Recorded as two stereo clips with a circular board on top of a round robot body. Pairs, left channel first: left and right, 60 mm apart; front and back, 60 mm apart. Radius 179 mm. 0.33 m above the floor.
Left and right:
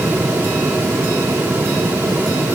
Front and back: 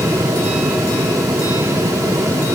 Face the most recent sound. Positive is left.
No sound to turn to.